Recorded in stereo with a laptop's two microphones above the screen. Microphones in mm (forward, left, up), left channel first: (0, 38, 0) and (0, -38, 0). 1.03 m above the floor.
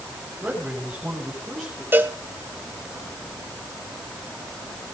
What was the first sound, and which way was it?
A man speaking, 10° right (ahead or behind).